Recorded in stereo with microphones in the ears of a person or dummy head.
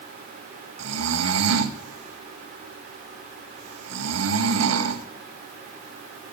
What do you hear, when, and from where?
0.8 s snoring: 80° right, 1.2 m